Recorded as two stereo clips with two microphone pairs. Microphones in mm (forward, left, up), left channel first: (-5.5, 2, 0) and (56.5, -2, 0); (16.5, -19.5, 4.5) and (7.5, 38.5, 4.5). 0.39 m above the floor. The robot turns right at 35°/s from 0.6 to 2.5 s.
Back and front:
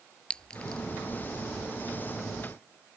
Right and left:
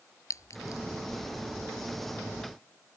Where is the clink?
110° right; by 0.8 s 105° right.